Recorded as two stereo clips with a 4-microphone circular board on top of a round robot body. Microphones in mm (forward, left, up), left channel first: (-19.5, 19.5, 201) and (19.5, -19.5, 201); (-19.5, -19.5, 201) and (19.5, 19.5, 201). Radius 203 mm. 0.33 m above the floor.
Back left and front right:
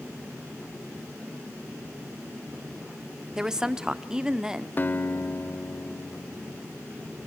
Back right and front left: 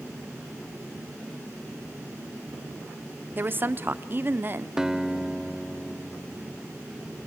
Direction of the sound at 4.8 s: 120° left.